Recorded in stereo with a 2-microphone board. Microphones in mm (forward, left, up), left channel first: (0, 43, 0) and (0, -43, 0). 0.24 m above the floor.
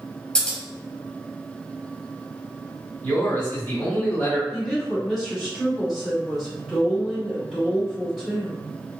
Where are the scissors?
10° left (ahead or behind), 0.9 m.